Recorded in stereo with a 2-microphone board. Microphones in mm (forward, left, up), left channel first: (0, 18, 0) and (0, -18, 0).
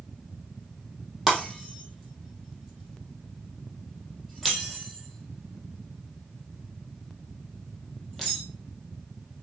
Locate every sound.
1.3 s breaking glass: centre (ahead or behind), 3.5 m